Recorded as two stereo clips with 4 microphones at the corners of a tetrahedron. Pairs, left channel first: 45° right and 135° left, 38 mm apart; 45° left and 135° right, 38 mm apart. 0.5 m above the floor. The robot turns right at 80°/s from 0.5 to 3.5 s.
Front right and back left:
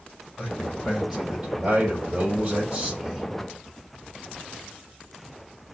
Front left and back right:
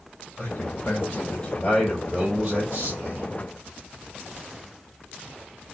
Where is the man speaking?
10° left, 2.5 m; by 3.3 s 125° right, 2.5 m.